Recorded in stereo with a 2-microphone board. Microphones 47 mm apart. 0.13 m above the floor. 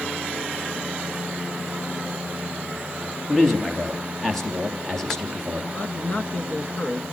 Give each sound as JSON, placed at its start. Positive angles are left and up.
{"t": 3.3, "sound": "a man speaking", "side_deg": 10, "distance_m": 3.5}
{"t": 5.7, "sound": "a man speaking", "side_deg": 35, "distance_m": 1.4}